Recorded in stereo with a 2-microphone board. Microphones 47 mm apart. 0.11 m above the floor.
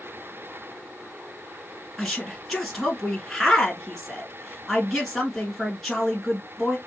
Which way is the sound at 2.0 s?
Centre (ahead or behind).